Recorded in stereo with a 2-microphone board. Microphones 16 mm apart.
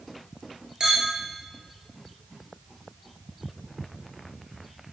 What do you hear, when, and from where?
0.8 s a clink: 50° right (ahead or behind), 1.0 m